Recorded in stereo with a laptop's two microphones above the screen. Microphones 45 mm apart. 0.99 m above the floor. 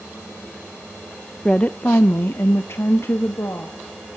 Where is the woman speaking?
15° left (ahead or behind), 0.5 m; by 3.8 s 75° left (ahead or behind), 1.4 m.